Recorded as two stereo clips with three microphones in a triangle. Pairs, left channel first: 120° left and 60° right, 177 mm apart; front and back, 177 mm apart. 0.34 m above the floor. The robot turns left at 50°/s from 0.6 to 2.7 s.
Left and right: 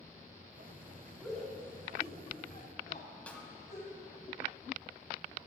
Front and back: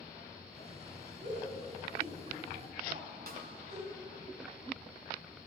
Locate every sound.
1.2 s a shout: 140° right, 2.5 m; by 3.9 s 145° left, 2.5 m
3.3 s a snare drum: 160° right, 1.5 m